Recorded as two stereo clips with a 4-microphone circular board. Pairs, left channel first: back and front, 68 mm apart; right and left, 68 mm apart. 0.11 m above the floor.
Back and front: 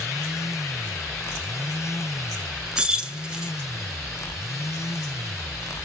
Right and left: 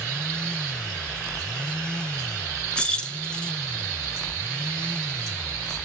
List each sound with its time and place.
2.8 s keys jangling: 50° right, 0.7 m